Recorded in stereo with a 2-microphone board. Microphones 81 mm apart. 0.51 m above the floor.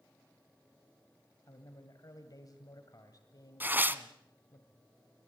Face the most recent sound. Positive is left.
turn(degrees=-25)  # may be behind; listen again after turning